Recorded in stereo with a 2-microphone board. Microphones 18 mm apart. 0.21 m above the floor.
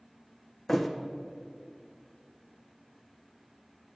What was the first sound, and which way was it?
A thud, 10° left (ahead or behind).